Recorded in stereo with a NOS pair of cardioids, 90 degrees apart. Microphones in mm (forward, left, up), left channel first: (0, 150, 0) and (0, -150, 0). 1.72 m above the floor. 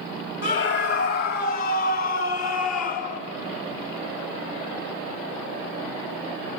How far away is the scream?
About 4.5 m.